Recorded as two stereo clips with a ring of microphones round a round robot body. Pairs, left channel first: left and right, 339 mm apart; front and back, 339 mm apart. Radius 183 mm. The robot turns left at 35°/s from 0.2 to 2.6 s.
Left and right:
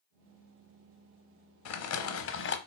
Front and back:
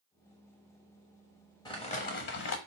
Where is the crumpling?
75° left, 0.7 m; by 2.6 s 45° left, 0.7 m.